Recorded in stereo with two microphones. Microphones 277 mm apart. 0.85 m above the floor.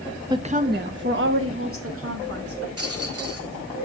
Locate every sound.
0.3 s a woman speaking: 15° right (ahead or behind), 0.5 m; by 2.7 s 55° right (ahead or behind), 2 m
2.8 s a rattle: 60° right (ahead or behind), 1.5 m